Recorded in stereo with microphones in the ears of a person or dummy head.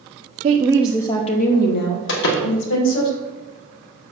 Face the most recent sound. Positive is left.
turn(degrees=70)  # may be behind; listen again after turning